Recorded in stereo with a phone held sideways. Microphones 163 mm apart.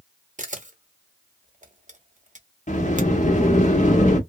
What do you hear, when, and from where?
0.4 s a camera shutter: 50° right (ahead or behind), 0.9 m
2.7 s a sliding door: 50° left (ahead or behind), 1.0 m